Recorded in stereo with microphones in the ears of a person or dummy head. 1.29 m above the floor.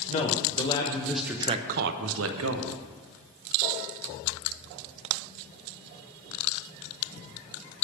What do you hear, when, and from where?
0.1 s a man speaking: 35° left (ahead or behind), 1.2 m; by 2.8 s 80° right, 1.1 m